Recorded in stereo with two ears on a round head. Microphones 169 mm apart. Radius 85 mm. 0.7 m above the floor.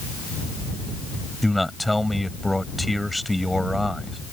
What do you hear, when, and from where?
1.4 s a man speaking: centre (ahead or behind)